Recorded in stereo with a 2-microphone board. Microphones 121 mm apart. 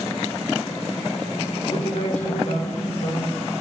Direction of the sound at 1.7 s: 75° left (ahead or behind).